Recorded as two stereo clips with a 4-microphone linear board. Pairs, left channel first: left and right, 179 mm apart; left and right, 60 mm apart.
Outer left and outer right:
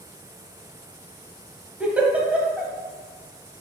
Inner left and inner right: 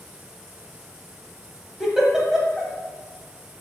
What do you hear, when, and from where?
1.8 s a giggle: 10° right (ahead or behind), 0.8 m